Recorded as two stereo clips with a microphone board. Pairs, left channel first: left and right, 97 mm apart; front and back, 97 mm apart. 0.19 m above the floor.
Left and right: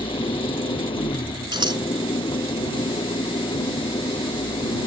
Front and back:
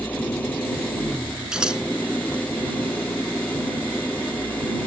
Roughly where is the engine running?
Left.